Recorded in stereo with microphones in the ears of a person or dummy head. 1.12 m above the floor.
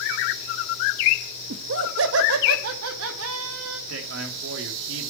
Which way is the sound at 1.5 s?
65° right (ahead or behind).